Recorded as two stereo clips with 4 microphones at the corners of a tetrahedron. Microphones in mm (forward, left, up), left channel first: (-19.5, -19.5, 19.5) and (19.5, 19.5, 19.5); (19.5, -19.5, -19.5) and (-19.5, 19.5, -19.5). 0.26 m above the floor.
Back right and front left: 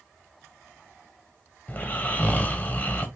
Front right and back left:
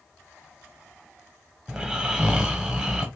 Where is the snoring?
160° right, 1.0 m.